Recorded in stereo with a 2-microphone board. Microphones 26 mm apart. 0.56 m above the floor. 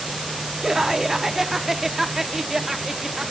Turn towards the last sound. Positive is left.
turn(degrees=-15)  # may be behind; listen again after turning